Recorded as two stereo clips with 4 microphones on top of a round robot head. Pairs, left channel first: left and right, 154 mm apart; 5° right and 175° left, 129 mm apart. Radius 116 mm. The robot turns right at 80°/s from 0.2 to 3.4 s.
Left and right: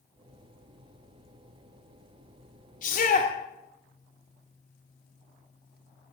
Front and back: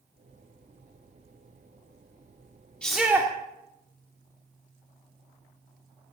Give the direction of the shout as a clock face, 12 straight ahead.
9 o'clock.